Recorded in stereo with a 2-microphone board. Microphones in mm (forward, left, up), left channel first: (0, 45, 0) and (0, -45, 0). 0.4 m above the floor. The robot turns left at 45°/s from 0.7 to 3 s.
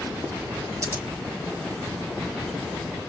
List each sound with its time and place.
0.8 s scissors: 35° right (ahead or behind), 1.2 m; by 1.0 s 25° right (ahead or behind), 1.2 m